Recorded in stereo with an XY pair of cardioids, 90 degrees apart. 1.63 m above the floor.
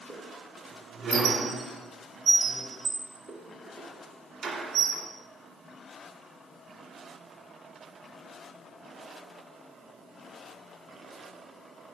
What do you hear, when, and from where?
0.1 s a squeak: 65° right, 2 m